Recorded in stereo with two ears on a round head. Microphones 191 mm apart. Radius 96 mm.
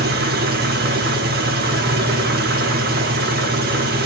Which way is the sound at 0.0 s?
45° right (ahead or behind).